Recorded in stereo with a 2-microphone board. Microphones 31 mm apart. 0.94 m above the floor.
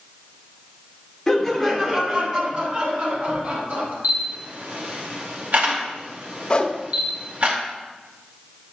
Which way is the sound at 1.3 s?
10° left (ahead or behind).